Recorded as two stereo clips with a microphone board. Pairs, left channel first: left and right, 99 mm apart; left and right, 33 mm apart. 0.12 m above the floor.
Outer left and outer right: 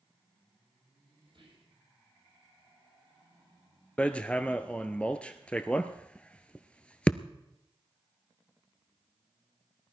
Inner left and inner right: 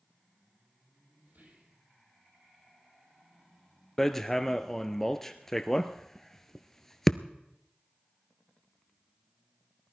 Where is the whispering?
55° right (ahead or behind), 4.5 m.